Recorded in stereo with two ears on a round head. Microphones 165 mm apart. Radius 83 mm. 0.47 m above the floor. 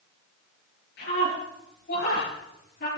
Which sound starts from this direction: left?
A scream, at 1.0 s.